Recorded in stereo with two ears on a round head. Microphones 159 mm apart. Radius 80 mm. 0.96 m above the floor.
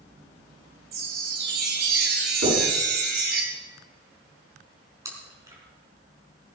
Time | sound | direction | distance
0.9 | a chime | 65° right (ahead or behind) | 3 m
2.4 | knocking | 70° right (ahead or behind) | 8.5 m
5.0 | chewing | 20° right (ahead or behind) | 4.5 m